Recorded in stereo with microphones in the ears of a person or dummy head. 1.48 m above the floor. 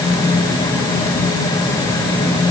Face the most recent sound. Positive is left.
No sound to turn to.